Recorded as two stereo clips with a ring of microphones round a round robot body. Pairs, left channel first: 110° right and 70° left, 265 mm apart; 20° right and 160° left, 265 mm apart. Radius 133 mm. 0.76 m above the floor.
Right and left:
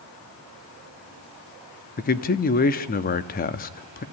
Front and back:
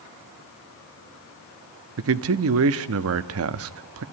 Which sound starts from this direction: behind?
A man speaking, at 2.0 s.